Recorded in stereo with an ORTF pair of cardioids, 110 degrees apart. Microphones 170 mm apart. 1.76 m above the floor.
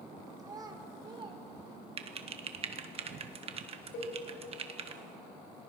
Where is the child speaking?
25° right, 3.5 m; by 1.4 s 35° right, 3 m.